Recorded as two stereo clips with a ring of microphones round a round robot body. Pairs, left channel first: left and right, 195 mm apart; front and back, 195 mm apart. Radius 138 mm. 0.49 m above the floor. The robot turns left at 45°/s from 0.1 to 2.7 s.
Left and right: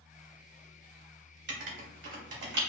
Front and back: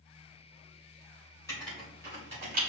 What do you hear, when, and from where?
1.5 s writing: 80° right, 1.5 m; by 2.6 s 130° right, 1.5 m